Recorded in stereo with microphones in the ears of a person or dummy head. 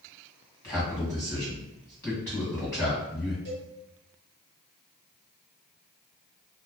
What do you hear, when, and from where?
0.6 s a man speaking: 15° left (ahead or behind), 1.5 m
3.5 s a cowbell: 35° right (ahead or behind), 1.5 m